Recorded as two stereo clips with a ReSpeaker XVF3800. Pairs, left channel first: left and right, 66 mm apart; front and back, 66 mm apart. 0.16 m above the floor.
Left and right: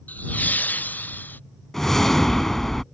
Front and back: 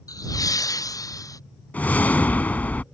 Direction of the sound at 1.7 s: 10° left.